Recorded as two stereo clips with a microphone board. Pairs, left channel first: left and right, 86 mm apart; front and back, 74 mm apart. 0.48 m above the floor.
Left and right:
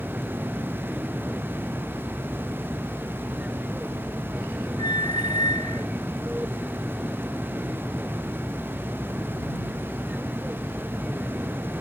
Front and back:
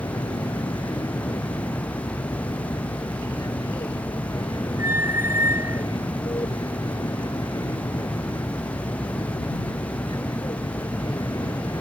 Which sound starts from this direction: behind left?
A squeak, at 4.8 s.